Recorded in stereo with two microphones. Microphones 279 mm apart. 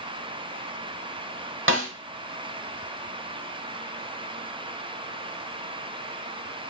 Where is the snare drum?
45° right (ahead or behind), 0.8 m.